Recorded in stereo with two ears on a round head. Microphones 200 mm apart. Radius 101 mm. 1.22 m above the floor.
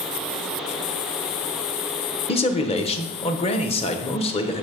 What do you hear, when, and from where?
2.3 s a man speaking: 25° left (ahead or behind), 0.9 m